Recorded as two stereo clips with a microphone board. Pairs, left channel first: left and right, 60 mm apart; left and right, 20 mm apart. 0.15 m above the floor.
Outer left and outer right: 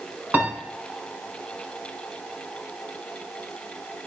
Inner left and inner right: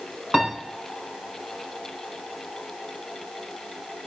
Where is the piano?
35° right (ahead or behind), 1.3 m.